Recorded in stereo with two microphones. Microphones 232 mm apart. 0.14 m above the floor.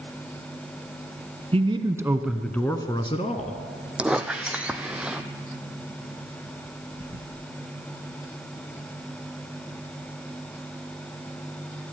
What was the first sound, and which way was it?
A man speaking, 25° right (ahead or behind).